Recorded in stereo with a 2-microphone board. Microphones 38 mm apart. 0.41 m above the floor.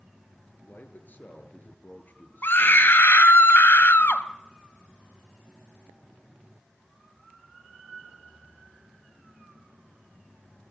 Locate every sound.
0.7 s a man speaking: 50° left (ahead or behind), 7 m
2.4 s a scream: 65° left (ahead or behind), 3 m